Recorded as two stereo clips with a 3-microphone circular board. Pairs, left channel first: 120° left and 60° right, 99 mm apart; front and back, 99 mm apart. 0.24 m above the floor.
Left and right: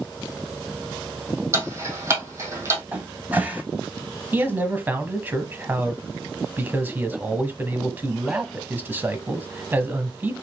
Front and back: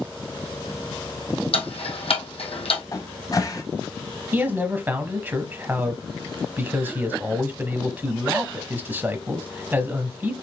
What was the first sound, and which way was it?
Ticking, straight ahead.